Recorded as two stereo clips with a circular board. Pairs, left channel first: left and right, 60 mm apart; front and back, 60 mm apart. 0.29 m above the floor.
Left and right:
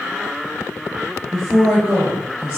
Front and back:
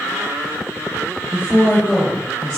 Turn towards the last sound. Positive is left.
turn(degrees=-75)